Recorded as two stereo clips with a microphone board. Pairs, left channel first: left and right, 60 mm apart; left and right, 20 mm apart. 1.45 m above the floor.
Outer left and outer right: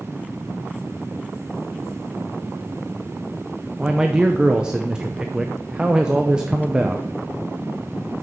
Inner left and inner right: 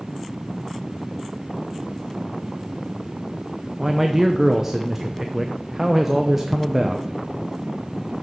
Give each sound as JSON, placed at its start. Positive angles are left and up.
{"t": 3.8, "sound": "a man speaking", "side_deg": -15, "distance_m": 0.6}